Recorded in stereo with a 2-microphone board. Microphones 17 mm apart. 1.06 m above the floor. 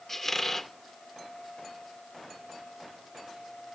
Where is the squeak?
15° left (ahead or behind), 0.7 m.